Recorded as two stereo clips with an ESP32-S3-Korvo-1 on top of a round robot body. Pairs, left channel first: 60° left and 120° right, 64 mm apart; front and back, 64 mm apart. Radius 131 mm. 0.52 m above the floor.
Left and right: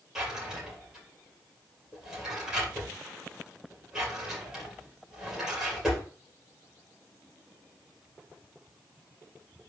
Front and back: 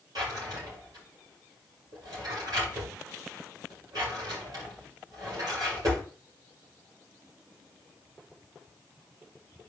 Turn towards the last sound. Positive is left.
turn(degrees=155)